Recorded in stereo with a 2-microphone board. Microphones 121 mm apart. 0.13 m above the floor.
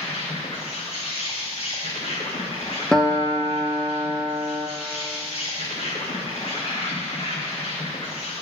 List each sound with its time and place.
0.0 s an insect: 55° left (ahead or behind), 1.8 m
2.9 s a guitar: 5° left (ahead or behind), 0.9 m